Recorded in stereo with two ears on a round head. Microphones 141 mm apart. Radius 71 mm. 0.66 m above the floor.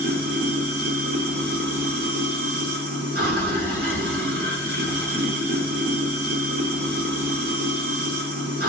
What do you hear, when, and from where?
0.0 s running water: 65° right (ahead or behind), 2 m